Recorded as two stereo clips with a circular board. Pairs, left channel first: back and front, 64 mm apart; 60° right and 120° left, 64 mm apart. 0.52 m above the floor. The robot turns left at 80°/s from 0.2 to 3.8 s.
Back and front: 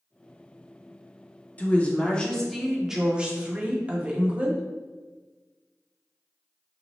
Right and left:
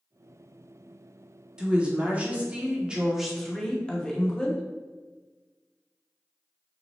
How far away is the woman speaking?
About 0.7 m.